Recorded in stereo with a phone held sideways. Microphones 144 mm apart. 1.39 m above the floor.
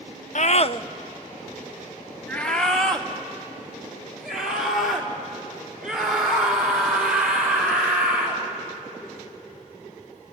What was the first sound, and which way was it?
A scream, 60° left (ahead or behind).